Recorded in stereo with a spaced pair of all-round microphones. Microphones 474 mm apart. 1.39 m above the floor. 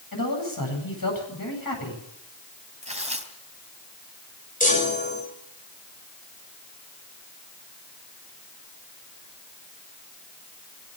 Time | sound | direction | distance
0.1 | a man speaking | 45° left (ahead or behind) | 9 m
2.8 | tearing paper | 15° right (ahead or behind) | 3 m
4.6 | a chime | 15° left (ahead or behind) | 7 m